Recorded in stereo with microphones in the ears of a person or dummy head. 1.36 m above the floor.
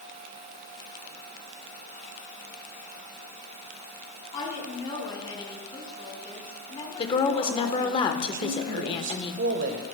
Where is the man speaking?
55° right (ahead or behind), 1.2 m.